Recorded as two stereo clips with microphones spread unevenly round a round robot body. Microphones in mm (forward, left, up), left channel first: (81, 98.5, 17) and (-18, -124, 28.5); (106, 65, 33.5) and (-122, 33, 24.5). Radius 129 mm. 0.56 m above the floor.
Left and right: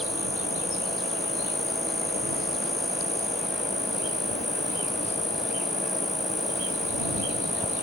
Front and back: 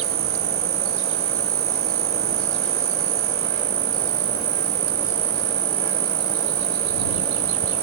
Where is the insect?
155° left.